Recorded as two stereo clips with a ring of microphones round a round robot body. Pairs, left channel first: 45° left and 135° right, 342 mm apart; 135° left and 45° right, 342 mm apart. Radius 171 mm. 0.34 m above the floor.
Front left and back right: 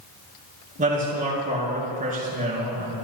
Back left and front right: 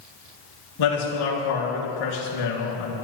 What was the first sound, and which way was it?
A man speaking, 155° left.